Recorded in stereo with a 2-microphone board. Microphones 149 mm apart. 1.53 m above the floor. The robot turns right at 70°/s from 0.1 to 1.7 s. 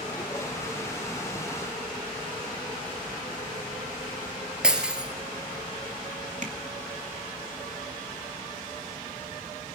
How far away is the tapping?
About 2 m.